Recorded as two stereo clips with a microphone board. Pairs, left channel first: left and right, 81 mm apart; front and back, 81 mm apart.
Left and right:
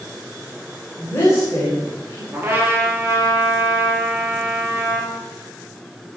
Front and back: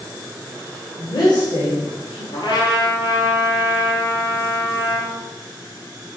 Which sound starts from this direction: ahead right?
A trumpet, at 2.3 s.